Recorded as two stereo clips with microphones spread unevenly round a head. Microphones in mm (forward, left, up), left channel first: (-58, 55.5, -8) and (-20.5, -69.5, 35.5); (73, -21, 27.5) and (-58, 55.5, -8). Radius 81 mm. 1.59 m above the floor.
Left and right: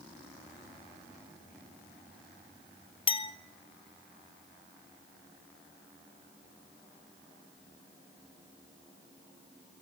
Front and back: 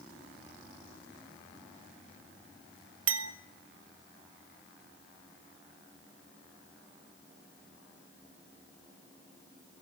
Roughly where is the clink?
Behind.